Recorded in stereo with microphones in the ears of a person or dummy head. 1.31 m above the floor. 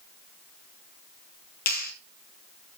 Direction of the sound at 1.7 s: 50° left (ahead or behind).